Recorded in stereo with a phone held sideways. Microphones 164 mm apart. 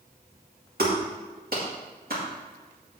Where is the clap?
65° right (ahead or behind), 2.5 m.